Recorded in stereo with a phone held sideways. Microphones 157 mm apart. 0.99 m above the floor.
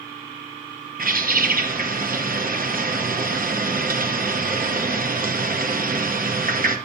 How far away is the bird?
About 0.7 m.